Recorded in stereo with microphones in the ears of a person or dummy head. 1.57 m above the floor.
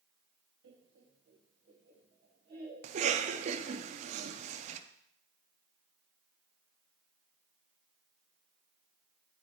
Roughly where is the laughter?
Right.